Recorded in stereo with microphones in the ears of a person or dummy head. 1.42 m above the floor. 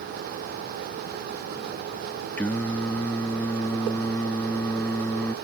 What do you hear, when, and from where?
2.4 s singing: centre (ahead or behind)